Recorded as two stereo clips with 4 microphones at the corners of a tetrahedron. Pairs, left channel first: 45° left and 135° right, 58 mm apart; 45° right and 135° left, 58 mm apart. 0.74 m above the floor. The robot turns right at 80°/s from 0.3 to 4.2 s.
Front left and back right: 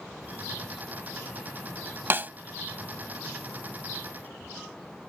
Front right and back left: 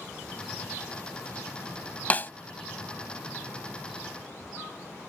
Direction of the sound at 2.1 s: 100° right.